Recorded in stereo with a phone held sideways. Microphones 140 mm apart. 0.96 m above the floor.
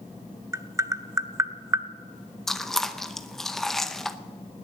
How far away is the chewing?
About 0.7 m.